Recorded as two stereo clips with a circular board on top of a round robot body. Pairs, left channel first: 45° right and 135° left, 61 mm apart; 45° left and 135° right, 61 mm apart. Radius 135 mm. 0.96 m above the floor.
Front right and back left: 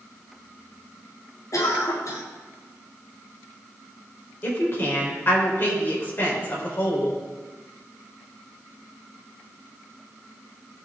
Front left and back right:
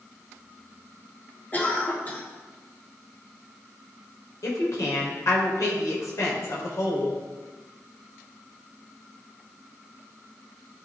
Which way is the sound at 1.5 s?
15° right.